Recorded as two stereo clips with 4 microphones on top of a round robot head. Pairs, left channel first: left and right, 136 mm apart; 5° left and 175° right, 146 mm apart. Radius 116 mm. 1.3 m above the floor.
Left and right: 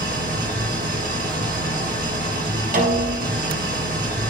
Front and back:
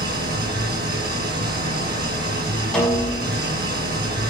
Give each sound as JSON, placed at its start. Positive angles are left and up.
{"t": 0.0, "sound": "an engine running", "azimuth_deg": -135, "distance_m": 3.0}
{"t": 2.7, "sound": "a snare drum", "azimuth_deg": -80, "distance_m": 5.5}